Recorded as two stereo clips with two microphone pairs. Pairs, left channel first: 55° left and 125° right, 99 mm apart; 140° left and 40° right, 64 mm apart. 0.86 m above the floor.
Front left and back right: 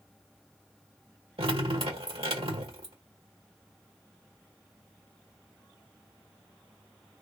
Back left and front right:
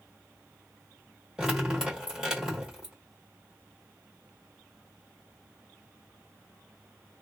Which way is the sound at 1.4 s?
115° right.